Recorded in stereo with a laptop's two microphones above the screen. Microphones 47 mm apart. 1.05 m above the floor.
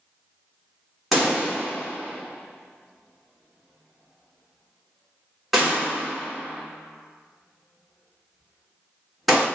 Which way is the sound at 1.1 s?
Centre (ahead or behind).